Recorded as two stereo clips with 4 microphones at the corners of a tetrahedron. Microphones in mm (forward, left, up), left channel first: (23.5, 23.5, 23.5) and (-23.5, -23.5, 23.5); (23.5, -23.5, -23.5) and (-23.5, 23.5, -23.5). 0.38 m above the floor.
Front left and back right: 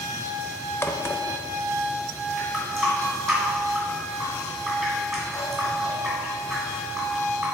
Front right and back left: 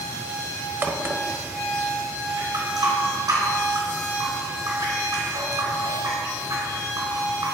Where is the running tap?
135° left, 2.5 m.